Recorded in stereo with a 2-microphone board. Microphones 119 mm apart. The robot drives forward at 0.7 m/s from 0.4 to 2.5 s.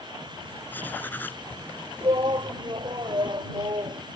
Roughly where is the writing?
Centre.